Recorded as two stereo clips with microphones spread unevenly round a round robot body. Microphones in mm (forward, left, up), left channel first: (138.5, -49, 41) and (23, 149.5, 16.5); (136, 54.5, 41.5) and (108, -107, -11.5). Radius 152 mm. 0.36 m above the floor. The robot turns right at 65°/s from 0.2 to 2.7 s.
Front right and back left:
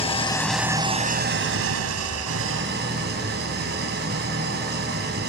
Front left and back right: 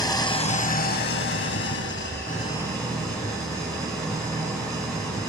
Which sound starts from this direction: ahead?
An engine running, at 0.0 s.